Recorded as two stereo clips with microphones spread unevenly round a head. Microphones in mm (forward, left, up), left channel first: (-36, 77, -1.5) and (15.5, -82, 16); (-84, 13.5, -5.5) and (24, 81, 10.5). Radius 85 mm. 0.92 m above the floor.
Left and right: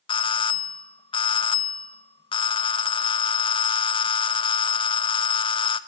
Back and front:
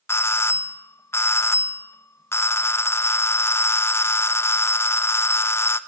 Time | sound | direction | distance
0.1 | a doorbell | 155° left | 1.1 m